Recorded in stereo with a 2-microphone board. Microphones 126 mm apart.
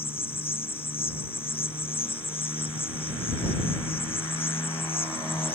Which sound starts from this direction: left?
An insect, at 0.0 s.